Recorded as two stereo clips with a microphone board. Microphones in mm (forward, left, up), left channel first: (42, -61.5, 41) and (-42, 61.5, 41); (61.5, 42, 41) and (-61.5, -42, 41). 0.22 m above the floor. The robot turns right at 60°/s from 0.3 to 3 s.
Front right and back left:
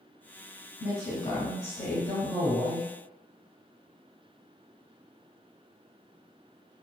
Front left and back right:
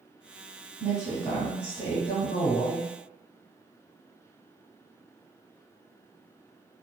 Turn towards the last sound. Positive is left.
turn(degrees=55)